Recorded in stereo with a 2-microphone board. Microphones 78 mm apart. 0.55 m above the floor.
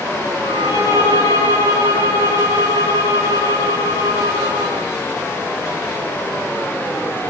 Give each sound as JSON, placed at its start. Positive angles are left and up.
{"t": 0.4, "sound": "a violin", "side_deg": 90, "distance_m": 8.0}